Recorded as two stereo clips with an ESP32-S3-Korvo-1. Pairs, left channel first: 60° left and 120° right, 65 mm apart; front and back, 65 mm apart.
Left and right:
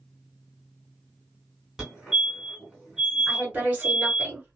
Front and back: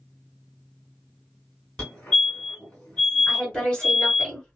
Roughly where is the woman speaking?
Ahead right.